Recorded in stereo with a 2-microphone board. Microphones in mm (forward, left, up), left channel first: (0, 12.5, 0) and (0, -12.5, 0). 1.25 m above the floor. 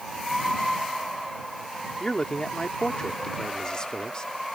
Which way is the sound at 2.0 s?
30° left (ahead or behind).